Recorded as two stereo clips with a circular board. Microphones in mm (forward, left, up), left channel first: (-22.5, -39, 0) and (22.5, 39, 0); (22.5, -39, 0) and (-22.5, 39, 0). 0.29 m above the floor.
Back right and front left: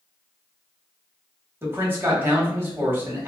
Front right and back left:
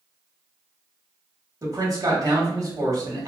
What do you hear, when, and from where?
1.6 s a man speaking: 110° left, 1.2 m